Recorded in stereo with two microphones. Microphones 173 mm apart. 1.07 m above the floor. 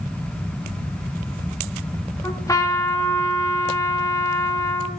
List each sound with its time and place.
2.2 s a trumpet: 20° left (ahead or behind), 1.3 m